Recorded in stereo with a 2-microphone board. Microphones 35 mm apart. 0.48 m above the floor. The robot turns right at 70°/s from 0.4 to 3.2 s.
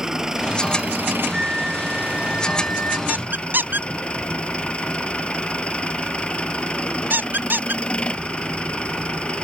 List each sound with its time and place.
0.0 s an engine running: 165° right; by 9.4 s 30° left
1.3 s a flute: 30° right; by 3.0 s 85° left
3.1 s a squeak: 55° right (ahead or behind); by 7.8 s 60° right (ahead or behind)